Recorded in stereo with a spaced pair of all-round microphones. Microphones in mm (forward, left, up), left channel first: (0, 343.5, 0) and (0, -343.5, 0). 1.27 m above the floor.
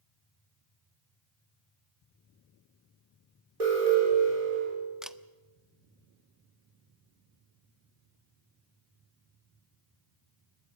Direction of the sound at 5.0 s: Centre (ahead or behind).